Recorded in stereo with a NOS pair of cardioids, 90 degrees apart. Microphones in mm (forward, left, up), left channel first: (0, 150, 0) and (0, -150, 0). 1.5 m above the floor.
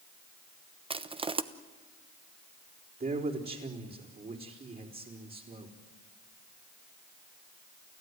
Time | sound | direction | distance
0.9 | crushing | 20° right | 1.1 m
3.0 | a man speaking | 30° right | 4.5 m